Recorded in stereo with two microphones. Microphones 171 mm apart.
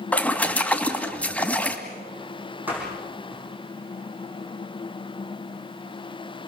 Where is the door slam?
10° right (ahead or behind), 8.5 m.